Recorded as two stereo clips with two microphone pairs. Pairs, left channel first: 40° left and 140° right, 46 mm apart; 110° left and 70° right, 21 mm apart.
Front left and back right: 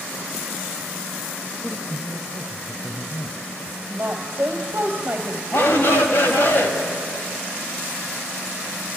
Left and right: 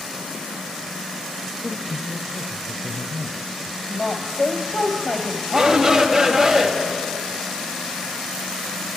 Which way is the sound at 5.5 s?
10° left.